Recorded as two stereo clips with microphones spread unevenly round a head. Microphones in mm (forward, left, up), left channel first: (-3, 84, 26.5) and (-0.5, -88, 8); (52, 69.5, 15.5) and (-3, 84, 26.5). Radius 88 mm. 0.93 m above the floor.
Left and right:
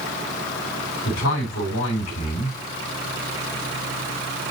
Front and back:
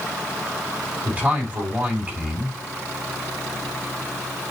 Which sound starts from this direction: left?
A man speaking, at 1.1 s.